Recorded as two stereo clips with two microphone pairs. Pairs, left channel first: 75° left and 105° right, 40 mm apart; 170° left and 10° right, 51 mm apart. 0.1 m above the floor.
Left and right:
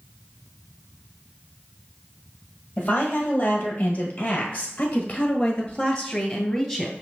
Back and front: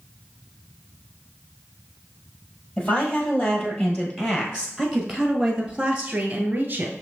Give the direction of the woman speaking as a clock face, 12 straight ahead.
8 o'clock.